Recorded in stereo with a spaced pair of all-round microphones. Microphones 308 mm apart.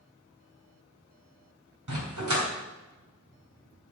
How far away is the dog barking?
About 3 m.